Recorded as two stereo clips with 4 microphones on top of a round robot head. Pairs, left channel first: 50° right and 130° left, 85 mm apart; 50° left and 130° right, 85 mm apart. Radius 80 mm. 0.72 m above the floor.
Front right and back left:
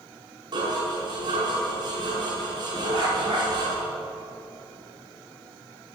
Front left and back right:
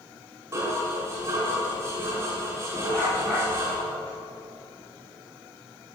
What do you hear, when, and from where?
0.5 s dishes clattering: 165° left, 4.5 m
2.9 s a dog barking: 125° left, 6 m